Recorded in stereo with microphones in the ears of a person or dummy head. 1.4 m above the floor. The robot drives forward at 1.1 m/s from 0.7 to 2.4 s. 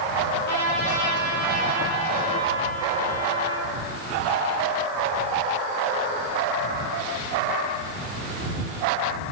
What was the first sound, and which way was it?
A trumpet, 65° left (ahead or behind).